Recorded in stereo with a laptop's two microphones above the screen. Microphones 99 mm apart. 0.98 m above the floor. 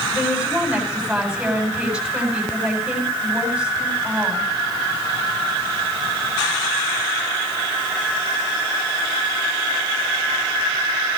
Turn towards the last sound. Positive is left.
turn(degrees=-5)  # may be behind; listen again after turning